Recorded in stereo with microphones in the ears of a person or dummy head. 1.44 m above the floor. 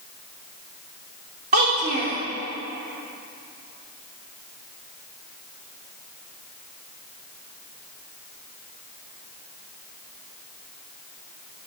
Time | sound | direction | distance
1.5 | a child speaking | 30° right (ahead or behind) | 0.8 m